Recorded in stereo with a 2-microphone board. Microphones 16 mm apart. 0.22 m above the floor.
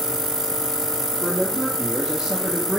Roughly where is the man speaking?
Right.